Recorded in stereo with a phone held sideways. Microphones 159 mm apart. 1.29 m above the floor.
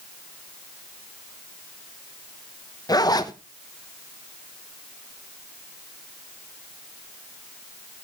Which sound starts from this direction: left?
A zipper, at 2.9 s.